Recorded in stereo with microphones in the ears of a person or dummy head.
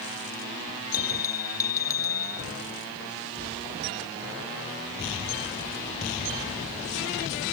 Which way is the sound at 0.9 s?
15° left (ahead or behind).